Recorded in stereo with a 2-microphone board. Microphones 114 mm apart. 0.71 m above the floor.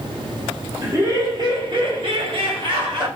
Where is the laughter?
25° right (ahead or behind), 0.9 m; by 3.1 s 40° right (ahead or behind), 1.3 m.